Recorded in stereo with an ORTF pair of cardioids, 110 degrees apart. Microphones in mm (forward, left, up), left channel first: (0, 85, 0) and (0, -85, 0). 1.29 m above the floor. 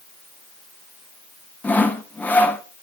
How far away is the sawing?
About 0.8 m.